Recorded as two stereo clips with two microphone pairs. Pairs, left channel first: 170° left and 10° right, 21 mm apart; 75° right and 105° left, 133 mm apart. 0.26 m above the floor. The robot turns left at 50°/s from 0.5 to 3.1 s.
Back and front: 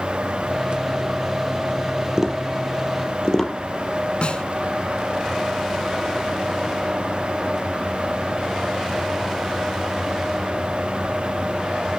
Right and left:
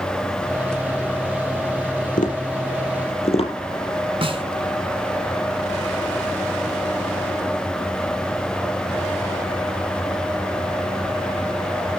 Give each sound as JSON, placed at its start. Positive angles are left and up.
{"t": 2.2, "sound": "tapping", "azimuth_deg": -70, "distance_m": 5.0}
{"t": 4.2, "sound": "a snare drum", "azimuth_deg": 150, "distance_m": 2.5}